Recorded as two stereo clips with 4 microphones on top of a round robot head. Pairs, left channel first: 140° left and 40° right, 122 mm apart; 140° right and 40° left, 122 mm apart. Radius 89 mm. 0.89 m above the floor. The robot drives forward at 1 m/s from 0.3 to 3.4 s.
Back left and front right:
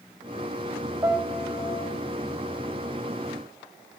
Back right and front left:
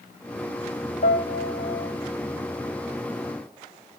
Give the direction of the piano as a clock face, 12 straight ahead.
4 o'clock.